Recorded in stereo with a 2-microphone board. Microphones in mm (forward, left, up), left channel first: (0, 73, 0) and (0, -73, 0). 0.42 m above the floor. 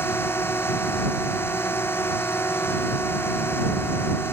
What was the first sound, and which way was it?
A drone, 15° left (ahead or behind).